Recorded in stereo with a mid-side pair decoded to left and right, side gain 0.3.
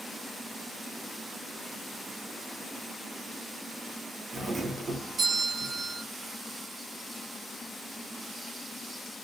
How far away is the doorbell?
About 1.8 m.